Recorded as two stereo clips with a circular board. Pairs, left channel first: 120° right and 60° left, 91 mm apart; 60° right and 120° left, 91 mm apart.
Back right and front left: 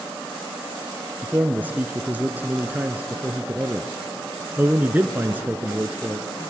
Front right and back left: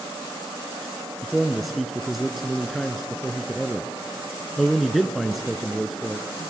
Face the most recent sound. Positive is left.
turn(degrees=30)